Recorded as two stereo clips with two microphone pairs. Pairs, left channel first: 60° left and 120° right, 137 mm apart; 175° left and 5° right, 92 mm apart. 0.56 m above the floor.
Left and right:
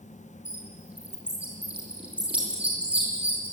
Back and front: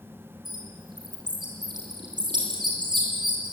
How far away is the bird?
About 8 m.